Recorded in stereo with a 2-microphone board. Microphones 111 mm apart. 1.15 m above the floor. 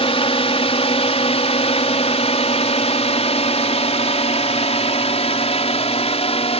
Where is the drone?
60° left (ahead or behind); by 6.6 s 65° left (ahead or behind).